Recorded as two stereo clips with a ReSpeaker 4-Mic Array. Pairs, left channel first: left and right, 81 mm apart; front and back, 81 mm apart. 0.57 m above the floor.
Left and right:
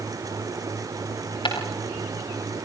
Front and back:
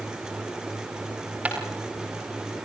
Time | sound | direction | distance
1.4 | footsteps | 105° left | 6 m